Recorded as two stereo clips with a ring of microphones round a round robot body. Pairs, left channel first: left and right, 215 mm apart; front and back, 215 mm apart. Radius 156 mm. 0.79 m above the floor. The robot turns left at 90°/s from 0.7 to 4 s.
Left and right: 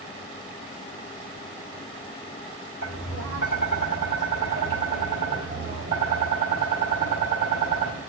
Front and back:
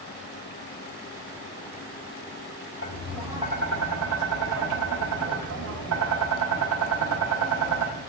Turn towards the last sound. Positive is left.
turn(degrees=-160)